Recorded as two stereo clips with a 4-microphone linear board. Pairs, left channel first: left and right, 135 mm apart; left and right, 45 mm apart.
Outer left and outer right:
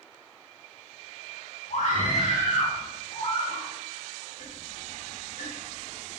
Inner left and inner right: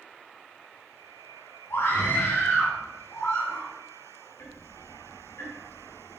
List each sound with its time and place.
1.7 s a scream: 70° left (ahead or behind), 2.5 m; by 3.7 s 65° left (ahead or behind), 3.5 m
4.4 s ticking: 75° left (ahead or behind), 3 m